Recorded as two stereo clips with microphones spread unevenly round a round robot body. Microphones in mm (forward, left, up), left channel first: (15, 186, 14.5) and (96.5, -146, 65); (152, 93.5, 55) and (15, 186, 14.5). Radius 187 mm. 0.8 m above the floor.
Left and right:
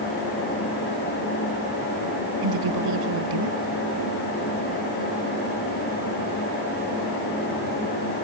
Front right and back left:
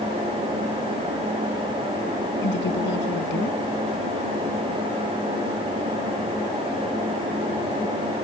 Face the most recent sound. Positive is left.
turn(degrees=-55)